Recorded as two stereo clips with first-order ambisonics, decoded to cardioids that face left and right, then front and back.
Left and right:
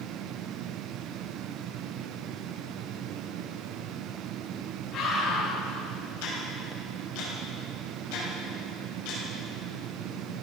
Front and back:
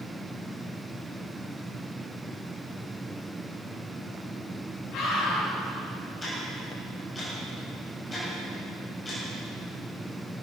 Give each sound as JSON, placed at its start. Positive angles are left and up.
{"t": 4.9, "sound": "a scream", "azimuth_deg": 40, "distance_m": 6.5}
{"t": 6.2, "sound": "ticking", "azimuth_deg": 75, "distance_m": 6.5}